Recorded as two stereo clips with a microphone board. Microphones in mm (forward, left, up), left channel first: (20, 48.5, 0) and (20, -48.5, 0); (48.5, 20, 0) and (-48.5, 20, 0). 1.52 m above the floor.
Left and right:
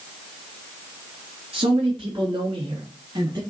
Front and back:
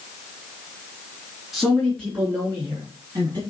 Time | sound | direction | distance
1.5 | a man speaking | 95° right | 3.5 m